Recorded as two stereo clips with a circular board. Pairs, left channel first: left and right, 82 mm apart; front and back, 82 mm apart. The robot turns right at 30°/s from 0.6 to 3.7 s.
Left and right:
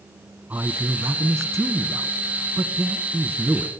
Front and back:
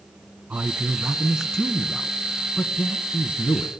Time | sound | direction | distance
0.5 | a man speaking | 125° right | 1.4 m